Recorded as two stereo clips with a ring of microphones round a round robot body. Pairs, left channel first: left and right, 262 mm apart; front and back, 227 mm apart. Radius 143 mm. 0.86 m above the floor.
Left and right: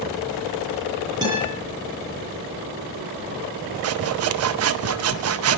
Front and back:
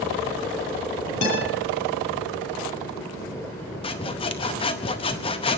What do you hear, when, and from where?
1.2 s a guitar: 15° right, 9.5 m
3.8 s sawing: 65° right, 0.7 m